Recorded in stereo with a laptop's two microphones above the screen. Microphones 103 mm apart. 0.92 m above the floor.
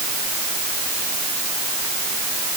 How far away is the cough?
I don't hear a cough.